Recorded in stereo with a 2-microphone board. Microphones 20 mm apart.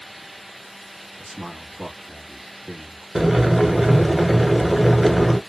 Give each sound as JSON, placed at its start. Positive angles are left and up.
{"t": 1.2, "sound": "a man speaking", "side_deg": -5, "distance_m": 1.2}
{"t": 3.1, "sound": "boiling", "side_deg": -20, "distance_m": 0.8}